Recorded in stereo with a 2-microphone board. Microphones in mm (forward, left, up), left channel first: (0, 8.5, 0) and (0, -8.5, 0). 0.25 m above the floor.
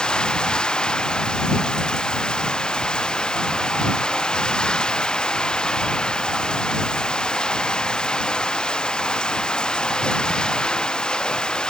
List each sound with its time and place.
0.0 s running water: 65° left (ahead or behind)